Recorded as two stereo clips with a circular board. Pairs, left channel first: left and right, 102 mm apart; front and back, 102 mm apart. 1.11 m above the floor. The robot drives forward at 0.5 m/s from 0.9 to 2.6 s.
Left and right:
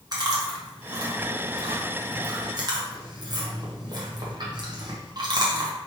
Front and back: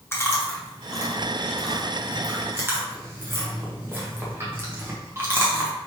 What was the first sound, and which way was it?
Chewing, 60° right.